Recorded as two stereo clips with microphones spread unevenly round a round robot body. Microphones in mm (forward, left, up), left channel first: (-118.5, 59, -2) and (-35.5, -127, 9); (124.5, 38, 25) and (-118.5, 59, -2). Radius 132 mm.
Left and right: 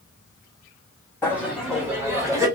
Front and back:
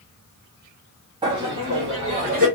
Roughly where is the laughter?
Behind.